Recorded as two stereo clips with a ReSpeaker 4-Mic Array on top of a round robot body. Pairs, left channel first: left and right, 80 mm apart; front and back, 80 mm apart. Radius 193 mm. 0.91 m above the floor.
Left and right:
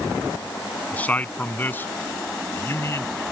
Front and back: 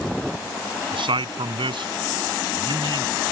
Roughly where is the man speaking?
Behind.